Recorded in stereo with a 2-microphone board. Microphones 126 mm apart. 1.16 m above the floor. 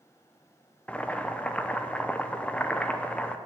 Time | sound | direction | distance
0.9 | boiling | 10° left (ahead or behind) | 0.6 m